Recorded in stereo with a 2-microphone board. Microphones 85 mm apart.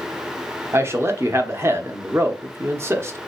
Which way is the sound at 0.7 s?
30° right (ahead or behind).